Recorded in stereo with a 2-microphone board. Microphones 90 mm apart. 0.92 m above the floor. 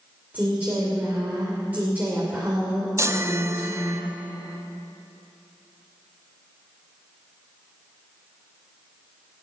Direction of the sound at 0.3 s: 20° right (ahead or behind).